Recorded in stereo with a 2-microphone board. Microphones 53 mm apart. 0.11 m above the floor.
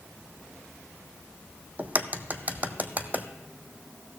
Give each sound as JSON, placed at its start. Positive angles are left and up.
{"t": 1.8, "sound": "a crack", "side_deg": -35, "distance_m": 0.8}